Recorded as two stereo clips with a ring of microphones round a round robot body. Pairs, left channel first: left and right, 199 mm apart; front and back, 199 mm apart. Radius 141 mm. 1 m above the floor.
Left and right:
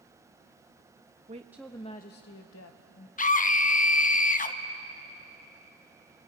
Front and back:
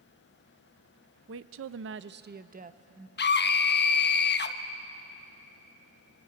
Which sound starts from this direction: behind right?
A woman speaking, at 1.3 s.